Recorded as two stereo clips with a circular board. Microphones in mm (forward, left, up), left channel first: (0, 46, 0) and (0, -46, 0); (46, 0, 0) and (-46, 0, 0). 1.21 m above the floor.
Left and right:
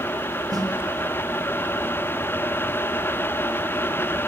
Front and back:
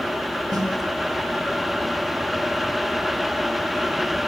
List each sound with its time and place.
0.5 s a snare drum: 135° right, 3 m